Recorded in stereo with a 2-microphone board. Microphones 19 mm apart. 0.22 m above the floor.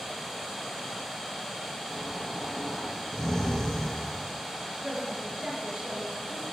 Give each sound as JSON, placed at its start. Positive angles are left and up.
{"t": 1.9, "sound": "snoring", "side_deg": 25, "distance_m": 4.0}
{"t": 4.8, "sound": "a woman speaking", "side_deg": -70, "distance_m": 4.0}